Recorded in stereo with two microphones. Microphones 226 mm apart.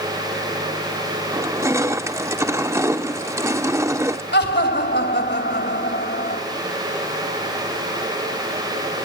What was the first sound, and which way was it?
Crushing, 15° right (ahead or behind).